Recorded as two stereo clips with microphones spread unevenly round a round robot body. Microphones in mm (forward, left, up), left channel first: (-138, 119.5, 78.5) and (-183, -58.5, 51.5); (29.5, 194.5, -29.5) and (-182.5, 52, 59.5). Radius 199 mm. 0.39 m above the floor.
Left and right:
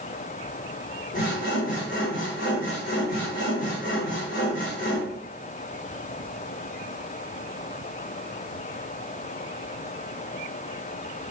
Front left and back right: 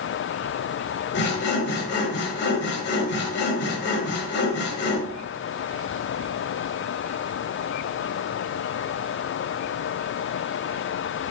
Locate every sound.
1.1 s sawing: 30° left, 1.5 m